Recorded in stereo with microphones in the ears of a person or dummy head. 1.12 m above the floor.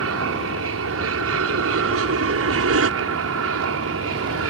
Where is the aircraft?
65° right (ahead or behind).